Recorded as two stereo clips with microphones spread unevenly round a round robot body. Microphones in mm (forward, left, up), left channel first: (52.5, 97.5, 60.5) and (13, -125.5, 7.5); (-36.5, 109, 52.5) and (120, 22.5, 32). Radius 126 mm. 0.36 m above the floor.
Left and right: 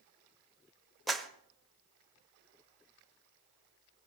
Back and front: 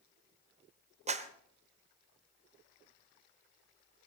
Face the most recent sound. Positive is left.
turn(degrees=-25)